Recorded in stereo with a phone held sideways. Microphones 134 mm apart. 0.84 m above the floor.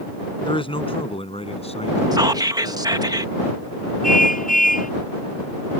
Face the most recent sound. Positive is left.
turn(degrees=85)